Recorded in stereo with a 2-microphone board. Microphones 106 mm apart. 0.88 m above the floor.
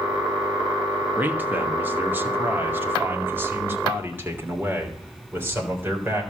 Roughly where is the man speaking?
Centre.